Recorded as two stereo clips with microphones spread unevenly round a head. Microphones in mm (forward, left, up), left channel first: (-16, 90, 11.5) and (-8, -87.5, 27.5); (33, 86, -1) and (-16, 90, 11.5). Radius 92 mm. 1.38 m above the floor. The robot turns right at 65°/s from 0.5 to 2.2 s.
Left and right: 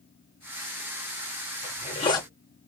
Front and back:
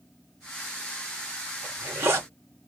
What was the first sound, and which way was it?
A zipper, 130° left.